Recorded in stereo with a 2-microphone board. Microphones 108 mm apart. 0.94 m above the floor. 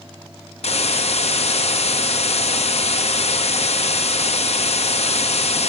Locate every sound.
0.6 s a hiss: 75° left (ahead or behind), 0.6 m